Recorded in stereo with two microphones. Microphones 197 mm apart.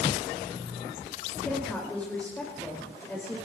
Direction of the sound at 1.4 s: 5° left (ahead or behind).